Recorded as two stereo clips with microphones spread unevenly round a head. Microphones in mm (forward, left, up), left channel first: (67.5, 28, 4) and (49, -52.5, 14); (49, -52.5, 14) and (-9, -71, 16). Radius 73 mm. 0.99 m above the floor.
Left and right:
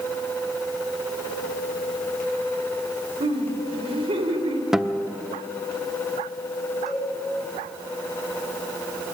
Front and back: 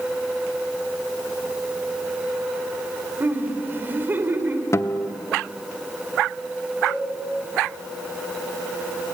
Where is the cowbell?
20° right, 8.5 m.